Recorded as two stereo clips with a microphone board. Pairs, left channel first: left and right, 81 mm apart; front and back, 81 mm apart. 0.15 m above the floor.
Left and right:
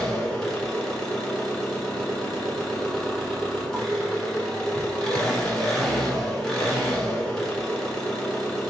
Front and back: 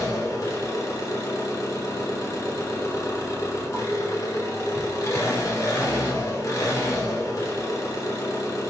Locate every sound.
0.0 s an engine running: 10° left, 1.1 m